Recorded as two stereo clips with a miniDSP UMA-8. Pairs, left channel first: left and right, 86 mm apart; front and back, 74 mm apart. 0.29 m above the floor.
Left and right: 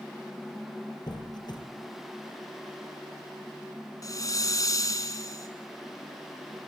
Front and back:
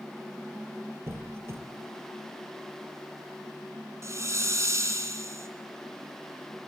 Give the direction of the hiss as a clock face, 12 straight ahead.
8 o'clock.